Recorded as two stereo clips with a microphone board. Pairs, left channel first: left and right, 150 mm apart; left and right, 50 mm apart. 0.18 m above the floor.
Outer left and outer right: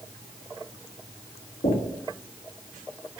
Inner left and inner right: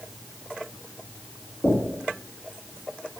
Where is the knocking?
55° left (ahead or behind), 2 m.